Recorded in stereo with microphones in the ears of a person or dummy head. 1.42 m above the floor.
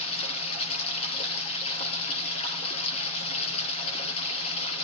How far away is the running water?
About 5 m.